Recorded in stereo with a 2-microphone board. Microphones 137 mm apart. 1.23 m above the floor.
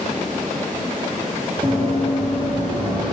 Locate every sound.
1.6 s running footsteps: 45° right (ahead or behind), 1.6 m; by 3.1 s 30° right (ahead or behind), 2 m